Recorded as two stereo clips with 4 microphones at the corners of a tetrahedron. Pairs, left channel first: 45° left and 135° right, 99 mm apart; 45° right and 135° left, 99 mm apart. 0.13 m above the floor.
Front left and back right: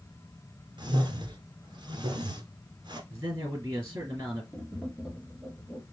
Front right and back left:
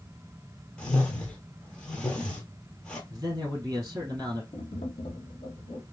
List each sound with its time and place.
0.8 s a whoosh: 125° right, 1.2 m
3.1 s a man speaking: 175° left, 3 m
4.5 s tapping: 55° right, 1.3 m